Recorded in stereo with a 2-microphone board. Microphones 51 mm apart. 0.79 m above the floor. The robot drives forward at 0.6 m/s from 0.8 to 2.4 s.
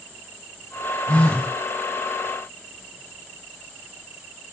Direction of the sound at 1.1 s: 25° left (ahead or behind).